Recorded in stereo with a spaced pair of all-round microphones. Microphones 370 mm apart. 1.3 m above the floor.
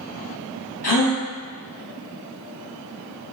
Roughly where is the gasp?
Left.